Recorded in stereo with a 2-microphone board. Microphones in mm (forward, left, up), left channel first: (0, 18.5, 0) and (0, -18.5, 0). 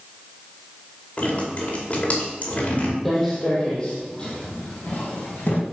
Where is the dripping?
40° left (ahead or behind), 2.5 m.